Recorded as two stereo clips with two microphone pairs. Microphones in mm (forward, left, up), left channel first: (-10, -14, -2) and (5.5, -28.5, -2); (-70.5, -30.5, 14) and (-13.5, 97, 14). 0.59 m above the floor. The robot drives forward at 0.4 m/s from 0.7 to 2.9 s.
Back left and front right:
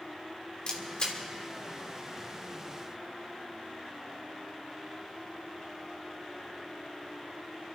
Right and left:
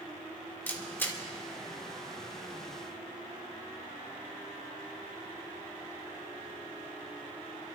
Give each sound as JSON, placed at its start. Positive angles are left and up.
{"t": 0.7, "sound": "a camera shutter", "azimuth_deg": 170, "distance_m": 1.8}